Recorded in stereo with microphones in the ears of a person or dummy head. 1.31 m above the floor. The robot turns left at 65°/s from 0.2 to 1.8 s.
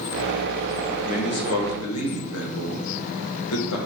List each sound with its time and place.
1.0 s a man speaking: 140° left, 1.8 m; by 3.8 s 90° left, 1.8 m